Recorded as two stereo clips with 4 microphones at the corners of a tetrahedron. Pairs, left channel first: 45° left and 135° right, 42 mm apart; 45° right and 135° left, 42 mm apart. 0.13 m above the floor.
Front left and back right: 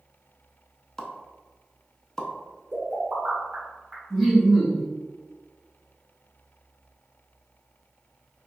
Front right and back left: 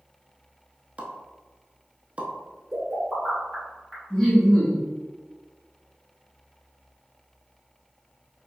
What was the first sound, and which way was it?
A pop, 110° left.